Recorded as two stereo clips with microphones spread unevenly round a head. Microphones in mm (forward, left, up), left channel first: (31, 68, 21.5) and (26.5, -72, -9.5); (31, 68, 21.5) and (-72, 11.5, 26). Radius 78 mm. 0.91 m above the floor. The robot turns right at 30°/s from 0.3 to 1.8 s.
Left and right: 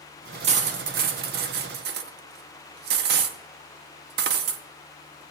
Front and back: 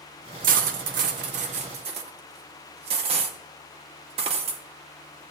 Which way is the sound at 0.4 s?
140° right.